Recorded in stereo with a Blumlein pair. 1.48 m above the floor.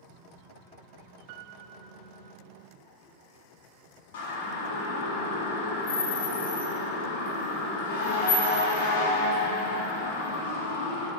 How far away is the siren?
About 4.5 m.